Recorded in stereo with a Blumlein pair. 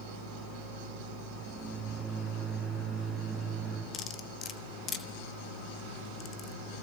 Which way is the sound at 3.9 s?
25° left.